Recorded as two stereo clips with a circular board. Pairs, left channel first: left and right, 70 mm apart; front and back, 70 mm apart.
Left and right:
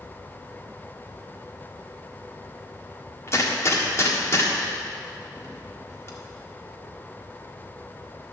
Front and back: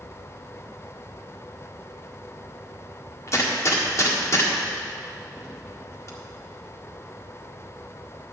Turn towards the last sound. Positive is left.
turn(degrees=40)